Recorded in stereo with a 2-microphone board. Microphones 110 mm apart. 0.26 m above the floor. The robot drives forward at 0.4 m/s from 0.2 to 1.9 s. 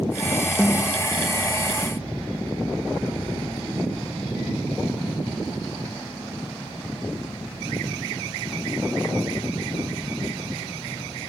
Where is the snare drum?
20° left (ahead or behind), 1.0 m.